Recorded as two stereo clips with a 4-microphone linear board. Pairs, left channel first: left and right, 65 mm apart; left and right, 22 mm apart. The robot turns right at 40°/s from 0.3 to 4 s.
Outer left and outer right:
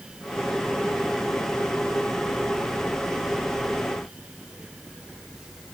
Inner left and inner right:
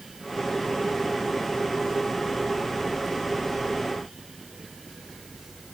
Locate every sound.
Only background noise.